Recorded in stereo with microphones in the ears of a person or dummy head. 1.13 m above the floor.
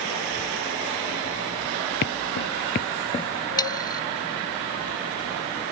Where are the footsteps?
50° left (ahead or behind); by 3.3 s 20° left (ahead or behind).